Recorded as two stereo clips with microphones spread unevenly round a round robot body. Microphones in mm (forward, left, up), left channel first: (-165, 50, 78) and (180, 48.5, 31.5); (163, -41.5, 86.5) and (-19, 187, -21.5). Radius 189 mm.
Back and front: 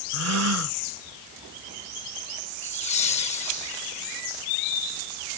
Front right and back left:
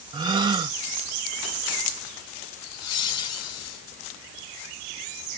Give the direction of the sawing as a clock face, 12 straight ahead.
No sawing in this recording.